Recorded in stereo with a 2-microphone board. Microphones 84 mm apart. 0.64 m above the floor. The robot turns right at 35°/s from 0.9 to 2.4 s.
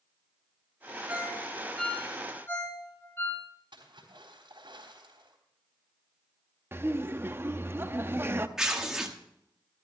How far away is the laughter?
About 0.8 m.